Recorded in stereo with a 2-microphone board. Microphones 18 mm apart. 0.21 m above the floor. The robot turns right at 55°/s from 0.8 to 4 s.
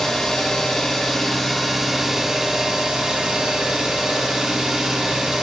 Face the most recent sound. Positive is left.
turn(degrees=-45)